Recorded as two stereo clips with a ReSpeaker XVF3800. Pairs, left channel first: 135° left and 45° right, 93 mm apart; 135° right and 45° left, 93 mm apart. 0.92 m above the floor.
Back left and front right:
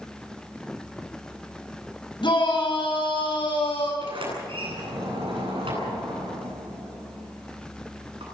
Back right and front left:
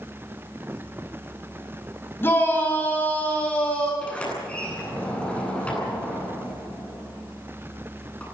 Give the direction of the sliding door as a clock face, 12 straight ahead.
2 o'clock.